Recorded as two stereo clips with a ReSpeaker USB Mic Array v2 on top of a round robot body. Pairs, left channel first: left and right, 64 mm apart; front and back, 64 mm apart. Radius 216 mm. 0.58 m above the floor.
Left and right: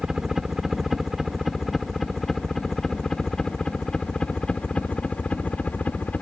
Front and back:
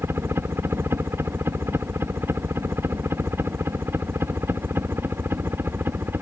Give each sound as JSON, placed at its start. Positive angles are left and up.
{"t": 0.0, "sound": "a helicopter", "azimuth_deg": -170}